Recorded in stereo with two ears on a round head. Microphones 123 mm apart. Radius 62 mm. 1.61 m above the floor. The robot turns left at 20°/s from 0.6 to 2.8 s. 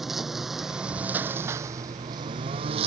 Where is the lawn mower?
Straight ahead; by 2.9 s 45° right.